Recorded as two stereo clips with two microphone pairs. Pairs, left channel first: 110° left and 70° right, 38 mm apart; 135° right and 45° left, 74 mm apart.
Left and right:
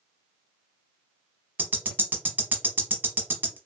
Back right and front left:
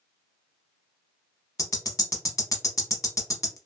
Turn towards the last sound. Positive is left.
turn(degrees=-95)